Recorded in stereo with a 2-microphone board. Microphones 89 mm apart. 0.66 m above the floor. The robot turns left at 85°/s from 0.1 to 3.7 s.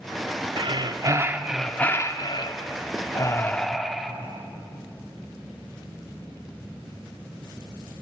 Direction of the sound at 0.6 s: 95° right.